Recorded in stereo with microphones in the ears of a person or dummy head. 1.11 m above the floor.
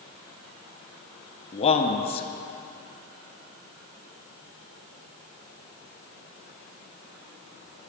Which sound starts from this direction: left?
A man speaking, at 1.5 s.